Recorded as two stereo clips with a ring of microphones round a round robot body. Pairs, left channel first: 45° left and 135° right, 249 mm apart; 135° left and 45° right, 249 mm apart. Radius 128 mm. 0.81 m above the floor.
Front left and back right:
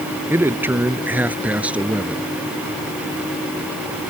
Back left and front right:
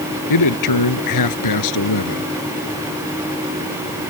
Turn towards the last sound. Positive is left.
turn(degrees=140)